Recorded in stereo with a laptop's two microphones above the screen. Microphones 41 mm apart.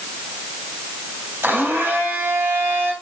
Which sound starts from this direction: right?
A blender, at 1.4 s.